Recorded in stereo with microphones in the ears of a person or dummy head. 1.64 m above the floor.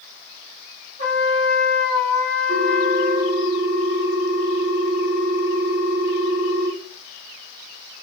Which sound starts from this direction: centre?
A ringtone, at 2.5 s.